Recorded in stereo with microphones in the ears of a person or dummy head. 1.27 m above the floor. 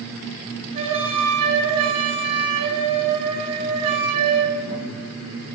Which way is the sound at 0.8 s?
30° right (ahead or behind).